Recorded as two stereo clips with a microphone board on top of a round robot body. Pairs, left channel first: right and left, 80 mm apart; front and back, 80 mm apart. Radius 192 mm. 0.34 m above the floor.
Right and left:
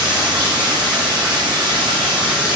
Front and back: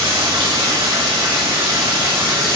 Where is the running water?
170° left, 6.5 m.